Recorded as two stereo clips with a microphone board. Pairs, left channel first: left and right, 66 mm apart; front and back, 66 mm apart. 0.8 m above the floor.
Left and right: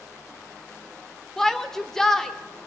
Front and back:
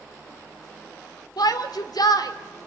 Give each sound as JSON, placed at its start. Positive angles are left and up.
{"t": 1.4, "sound": "a shout", "azimuth_deg": 5, "distance_m": 2.0}